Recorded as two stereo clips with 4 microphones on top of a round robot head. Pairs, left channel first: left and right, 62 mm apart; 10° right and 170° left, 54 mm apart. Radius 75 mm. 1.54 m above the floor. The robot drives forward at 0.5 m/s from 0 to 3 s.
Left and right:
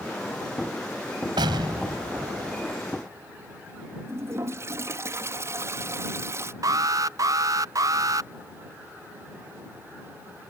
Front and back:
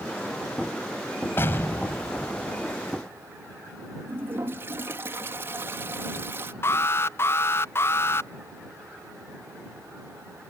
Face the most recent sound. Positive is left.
turn(degrees=-55)